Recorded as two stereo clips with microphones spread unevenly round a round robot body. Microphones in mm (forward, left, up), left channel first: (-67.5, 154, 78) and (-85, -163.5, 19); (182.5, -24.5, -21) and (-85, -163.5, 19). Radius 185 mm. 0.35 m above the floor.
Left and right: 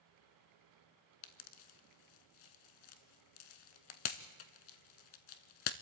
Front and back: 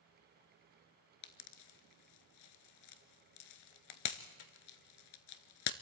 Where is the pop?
60° left, 0.8 m.